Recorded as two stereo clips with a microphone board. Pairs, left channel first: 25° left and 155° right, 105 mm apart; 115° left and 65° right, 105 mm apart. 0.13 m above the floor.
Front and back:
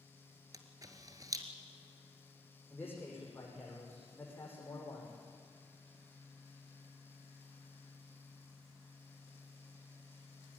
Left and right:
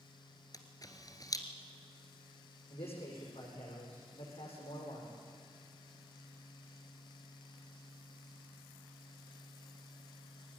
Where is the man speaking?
95° left, 8.5 m.